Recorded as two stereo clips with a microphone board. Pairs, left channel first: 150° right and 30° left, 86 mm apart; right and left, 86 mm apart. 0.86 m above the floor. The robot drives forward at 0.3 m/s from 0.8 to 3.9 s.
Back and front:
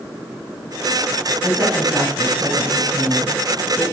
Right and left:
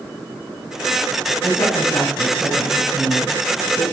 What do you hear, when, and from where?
1.4 s a woman speaking: 50° right, 4.5 m; by 3.8 s 60° right, 4 m